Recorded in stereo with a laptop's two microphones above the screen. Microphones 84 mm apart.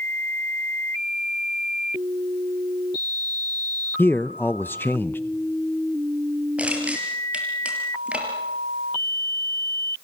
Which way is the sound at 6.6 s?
15° right (ahead or behind).